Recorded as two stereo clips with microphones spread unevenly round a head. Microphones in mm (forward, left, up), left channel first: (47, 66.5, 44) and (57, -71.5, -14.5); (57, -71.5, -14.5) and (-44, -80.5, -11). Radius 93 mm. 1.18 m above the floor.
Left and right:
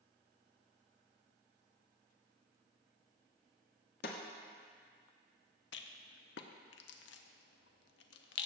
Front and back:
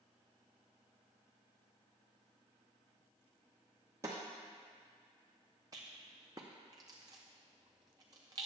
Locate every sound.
4.0 s a snare drum: 110° left, 1.1 m
5.7 s a rattle: 115° left, 0.6 m